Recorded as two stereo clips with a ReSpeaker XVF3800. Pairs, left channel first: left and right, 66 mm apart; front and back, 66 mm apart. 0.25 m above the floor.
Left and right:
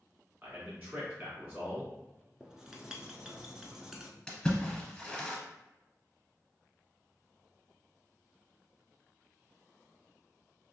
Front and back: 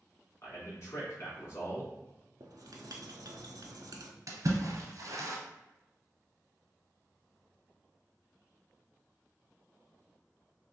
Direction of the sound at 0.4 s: 35° right.